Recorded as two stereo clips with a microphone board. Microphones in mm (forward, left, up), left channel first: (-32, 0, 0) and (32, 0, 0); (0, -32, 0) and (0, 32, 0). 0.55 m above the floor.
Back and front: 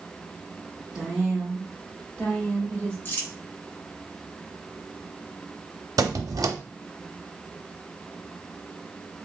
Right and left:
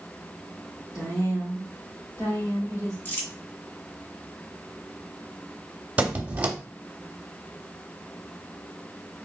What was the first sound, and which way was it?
A woman speaking, 75° right.